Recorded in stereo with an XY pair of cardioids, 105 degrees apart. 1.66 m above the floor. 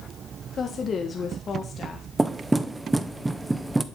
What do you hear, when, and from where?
0.6 s a woman speaking: 40° left, 1.7 m
2.2 s knocking: 15° right, 0.9 m